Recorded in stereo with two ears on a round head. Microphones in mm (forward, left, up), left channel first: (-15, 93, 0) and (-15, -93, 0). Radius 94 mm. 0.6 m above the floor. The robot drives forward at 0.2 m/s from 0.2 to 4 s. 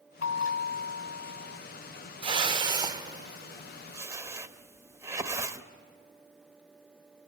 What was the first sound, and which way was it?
A bell, 65° left (ahead or behind).